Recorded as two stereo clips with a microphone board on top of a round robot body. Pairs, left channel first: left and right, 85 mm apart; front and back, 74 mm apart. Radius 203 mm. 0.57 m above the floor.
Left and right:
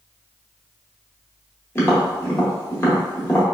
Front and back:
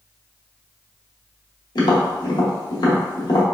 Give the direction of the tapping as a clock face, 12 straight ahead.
11 o'clock.